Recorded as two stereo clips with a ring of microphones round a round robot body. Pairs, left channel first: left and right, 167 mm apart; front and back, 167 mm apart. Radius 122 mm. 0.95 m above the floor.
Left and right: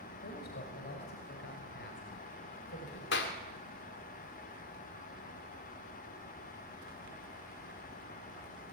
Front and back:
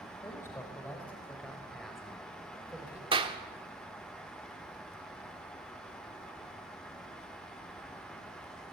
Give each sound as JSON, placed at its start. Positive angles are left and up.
{"t": 0.2, "sound": "a man speaking", "azimuth_deg": 70, "distance_m": 4.5}
{"t": 3.1, "sound": "a clap", "azimuth_deg": 120, "distance_m": 2.0}